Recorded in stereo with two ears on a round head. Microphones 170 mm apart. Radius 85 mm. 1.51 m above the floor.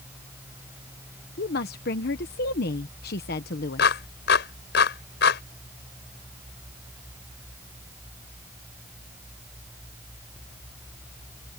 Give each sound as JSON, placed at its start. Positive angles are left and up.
{"t": 1.4, "sound": "a woman speaking", "side_deg": 55}
{"t": 3.8, "sound": "a clap", "side_deg": 60}